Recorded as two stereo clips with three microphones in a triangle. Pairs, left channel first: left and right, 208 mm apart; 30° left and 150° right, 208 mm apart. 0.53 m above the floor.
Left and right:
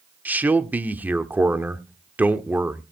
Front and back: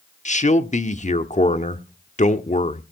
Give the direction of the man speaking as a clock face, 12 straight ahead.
12 o'clock.